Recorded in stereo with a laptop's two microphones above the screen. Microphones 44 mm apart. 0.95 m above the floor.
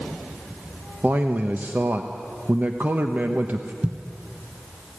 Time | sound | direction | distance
1.0 | a man speaking | 45° right (ahead or behind) | 1.0 m
3.8 | a thud | 35° right (ahead or behind) | 1.6 m